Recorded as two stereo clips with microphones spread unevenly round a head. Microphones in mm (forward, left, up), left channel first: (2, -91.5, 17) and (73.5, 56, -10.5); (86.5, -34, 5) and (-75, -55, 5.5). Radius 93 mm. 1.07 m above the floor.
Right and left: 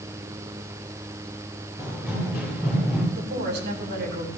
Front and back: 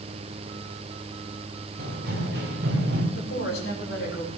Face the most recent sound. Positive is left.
turn(degrees=50)